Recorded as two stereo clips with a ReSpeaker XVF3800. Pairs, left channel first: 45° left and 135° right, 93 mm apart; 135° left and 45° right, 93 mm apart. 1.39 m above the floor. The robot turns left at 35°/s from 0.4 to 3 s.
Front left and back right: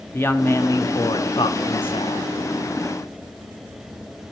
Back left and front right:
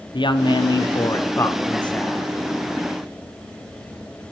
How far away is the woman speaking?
About 0.8 m.